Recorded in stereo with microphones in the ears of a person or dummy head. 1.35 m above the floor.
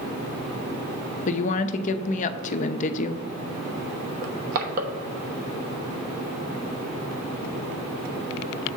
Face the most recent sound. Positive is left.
turn(degrees=-50)  # may be behind; listen again after turning